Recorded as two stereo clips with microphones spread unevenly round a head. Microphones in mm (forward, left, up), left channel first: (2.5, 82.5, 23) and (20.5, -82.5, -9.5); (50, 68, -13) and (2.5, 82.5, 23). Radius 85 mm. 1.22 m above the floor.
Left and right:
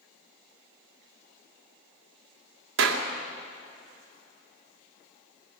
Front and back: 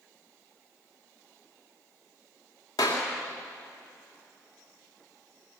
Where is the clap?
70° right, 2 m.